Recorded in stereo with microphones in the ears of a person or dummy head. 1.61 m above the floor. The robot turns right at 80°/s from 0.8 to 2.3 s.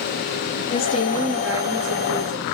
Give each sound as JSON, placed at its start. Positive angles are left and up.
{"t": 0.7, "sound": "a woman speaking", "azimuth_deg": 135, "distance_m": 2.5}